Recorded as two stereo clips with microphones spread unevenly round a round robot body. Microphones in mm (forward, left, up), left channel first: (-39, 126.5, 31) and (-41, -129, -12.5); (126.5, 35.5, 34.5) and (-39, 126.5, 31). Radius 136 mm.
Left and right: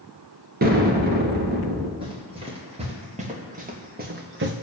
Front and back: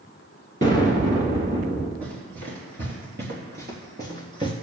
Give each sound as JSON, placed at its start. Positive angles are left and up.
{"t": 0.6, "sound": "an explosion", "azimuth_deg": -145, "distance_m": 2.0}
{"t": 2.0, "sound": "running footsteps", "azimuth_deg": -160, "distance_m": 4.5}